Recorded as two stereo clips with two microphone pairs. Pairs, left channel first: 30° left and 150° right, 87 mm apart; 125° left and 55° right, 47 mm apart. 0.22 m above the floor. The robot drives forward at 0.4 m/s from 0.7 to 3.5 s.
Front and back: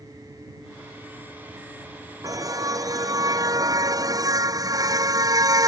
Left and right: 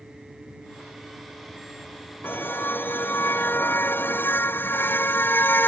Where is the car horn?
160° left; by 5.7 s 165° left.